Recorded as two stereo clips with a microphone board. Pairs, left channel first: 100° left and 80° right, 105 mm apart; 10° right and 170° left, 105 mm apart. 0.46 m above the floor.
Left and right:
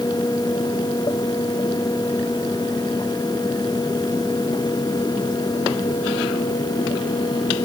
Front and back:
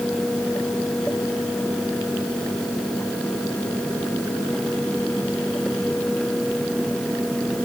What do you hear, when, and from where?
Only background noise.